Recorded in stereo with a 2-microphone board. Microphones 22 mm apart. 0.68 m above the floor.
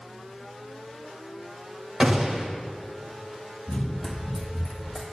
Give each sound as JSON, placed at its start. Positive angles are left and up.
{"t": 2.0, "sound": "a gunshot", "side_deg": -40, "distance_m": 1.7}
{"t": 3.7, "sound": "running footsteps", "side_deg": 35, "distance_m": 1.1}